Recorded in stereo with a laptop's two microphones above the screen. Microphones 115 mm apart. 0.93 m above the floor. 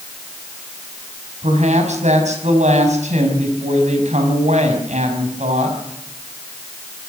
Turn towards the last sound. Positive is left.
turn(degrees=-85)